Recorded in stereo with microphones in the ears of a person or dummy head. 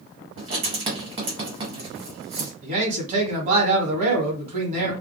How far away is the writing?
About 1.3 m.